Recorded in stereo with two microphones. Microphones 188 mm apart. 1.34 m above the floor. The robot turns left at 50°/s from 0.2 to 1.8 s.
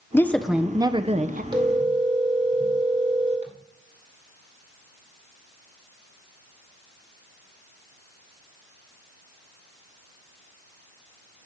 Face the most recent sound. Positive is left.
turn(degrees=-40)  # may be behind; listen again after turning